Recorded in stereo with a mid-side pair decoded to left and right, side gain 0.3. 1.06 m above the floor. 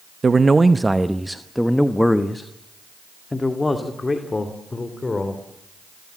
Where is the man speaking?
45° right, 0.9 m; by 5.4 s 40° left, 3 m.